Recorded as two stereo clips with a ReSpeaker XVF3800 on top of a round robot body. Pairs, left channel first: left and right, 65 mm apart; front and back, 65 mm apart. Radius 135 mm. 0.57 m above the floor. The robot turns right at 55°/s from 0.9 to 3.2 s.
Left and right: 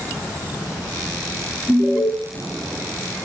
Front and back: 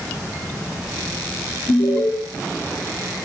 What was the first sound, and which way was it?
An alarm, 5° left.